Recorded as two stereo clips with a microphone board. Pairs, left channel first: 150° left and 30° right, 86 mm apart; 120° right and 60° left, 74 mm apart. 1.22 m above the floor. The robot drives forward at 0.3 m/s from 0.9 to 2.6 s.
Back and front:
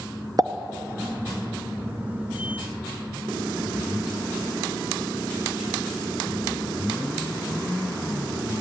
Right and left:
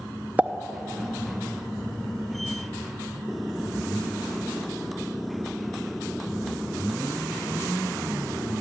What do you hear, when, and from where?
0.4 s a pop: 5° right, 0.7 m